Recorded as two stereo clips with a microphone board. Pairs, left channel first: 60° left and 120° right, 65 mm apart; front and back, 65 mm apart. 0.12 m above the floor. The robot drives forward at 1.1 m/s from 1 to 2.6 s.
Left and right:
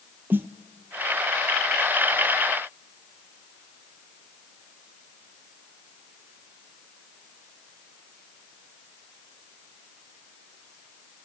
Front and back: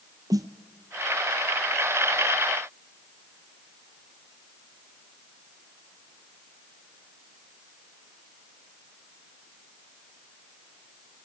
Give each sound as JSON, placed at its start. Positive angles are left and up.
{"t": 0.3, "sound": "a snare drum", "azimuth_deg": -175, "distance_m": 1.1}